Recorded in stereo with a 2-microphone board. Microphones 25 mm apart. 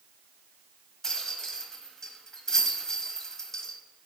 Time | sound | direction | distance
1.0 | a rattle | 20° left (ahead or behind) | 1.0 m